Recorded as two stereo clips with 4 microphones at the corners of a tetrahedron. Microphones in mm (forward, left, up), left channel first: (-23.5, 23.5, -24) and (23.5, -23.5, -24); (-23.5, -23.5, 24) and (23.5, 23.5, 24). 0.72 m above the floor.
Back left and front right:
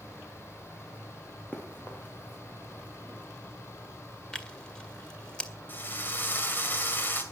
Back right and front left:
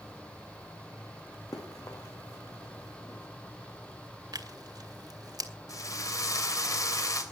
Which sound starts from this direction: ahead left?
Tearing paper, at 4.3 s.